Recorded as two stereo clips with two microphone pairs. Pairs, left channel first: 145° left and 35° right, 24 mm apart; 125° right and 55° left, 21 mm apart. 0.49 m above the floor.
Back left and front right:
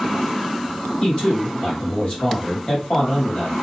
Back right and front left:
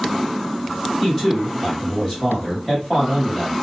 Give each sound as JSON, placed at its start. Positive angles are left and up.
{"t": 1.0, "sound": "a man speaking", "azimuth_deg": 170, "distance_m": 2.0}